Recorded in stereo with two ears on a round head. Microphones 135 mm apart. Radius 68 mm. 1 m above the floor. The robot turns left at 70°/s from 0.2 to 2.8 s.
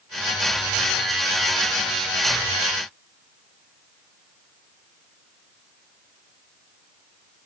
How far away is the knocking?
I don't hear knocking.